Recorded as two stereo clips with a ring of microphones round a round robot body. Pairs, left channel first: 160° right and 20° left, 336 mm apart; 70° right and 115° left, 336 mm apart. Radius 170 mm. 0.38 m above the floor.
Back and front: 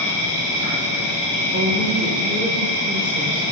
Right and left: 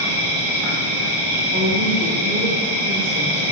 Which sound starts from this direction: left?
A woman speaking, at 1.5 s.